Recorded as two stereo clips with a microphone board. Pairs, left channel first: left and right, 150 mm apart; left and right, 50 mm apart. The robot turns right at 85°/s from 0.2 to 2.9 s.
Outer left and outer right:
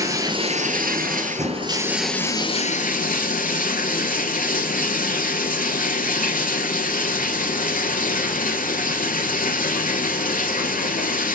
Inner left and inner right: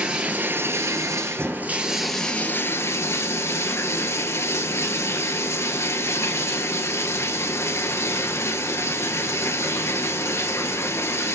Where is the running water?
155° right, 1.6 m; by 11.3 s 70° left, 1.6 m.